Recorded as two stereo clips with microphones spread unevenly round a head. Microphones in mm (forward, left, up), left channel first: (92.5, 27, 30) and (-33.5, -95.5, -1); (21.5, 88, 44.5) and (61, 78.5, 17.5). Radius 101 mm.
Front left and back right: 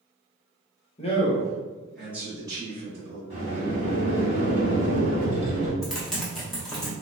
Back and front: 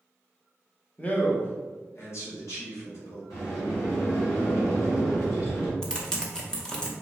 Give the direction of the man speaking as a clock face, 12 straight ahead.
10 o'clock.